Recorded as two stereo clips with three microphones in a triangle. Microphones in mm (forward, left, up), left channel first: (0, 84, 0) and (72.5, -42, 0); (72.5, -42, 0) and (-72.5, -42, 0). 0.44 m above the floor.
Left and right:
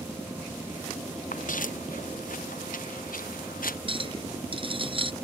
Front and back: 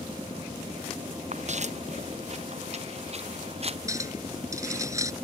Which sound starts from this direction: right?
A clink, at 3.9 s.